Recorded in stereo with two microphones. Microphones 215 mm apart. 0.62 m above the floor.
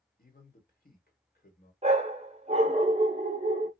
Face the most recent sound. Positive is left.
turn(degrees=-30)  # may be behind; listen again after turning